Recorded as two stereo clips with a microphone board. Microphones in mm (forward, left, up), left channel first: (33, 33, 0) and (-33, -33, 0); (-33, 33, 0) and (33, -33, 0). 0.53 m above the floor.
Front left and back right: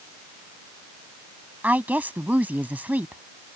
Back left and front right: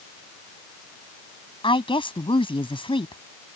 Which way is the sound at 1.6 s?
150° left.